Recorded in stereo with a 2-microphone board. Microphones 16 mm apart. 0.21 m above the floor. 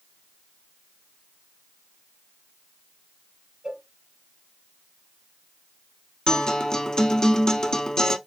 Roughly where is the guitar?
Left.